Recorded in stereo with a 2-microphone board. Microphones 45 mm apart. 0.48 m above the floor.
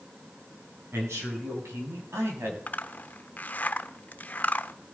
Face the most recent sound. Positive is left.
turn(degrees=40)  # may be behind; listen again after turning